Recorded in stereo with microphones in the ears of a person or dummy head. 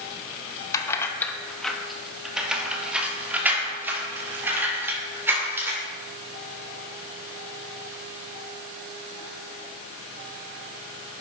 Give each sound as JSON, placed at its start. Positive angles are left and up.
{"t": 0.7, "sound": "keys jangling", "side_deg": 15, "distance_m": 0.8}